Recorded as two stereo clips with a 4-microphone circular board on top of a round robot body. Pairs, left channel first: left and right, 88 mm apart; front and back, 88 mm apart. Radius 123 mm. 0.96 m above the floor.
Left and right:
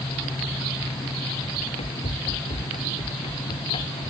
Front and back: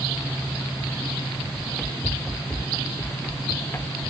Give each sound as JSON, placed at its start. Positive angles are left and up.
{"t": 1.6, "sound": "running footsteps", "azimuth_deg": 85}